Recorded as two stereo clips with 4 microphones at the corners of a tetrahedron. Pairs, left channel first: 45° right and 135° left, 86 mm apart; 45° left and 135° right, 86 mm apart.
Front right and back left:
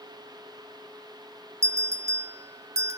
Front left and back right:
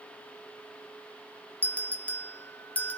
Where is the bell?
110° left, 1.2 m.